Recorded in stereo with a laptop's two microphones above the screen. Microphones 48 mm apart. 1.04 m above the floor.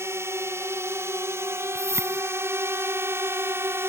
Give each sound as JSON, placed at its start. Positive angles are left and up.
{"t": 0.0, "sound": "a drone", "side_deg": -70}
{"t": 1.8, "sound": "a whoosh", "side_deg": -80}